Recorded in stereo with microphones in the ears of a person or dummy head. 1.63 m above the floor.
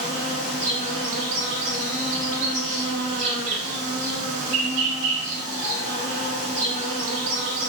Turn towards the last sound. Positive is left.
turn(degrees=-35)  # may be behind; listen again after turning